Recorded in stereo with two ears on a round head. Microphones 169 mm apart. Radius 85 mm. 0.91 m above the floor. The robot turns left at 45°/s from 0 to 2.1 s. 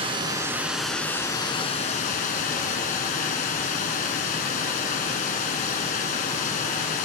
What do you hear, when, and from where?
0.0 s running water: 140° right, 1.4 m; by 7.0 s 125° left, 1.4 m